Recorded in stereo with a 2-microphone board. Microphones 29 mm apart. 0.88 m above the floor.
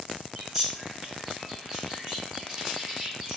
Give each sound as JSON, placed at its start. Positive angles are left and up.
{"t": 0.3, "sound": "a bird", "side_deg": -15, "distance_m": 1.6}